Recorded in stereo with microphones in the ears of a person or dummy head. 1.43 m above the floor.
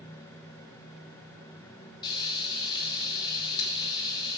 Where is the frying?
25° left (ahead or behind), 2.5 m.